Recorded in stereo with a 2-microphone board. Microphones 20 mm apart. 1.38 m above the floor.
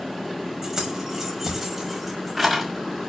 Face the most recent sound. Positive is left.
turn(degrees=-5)  # may be behind; listen again after turning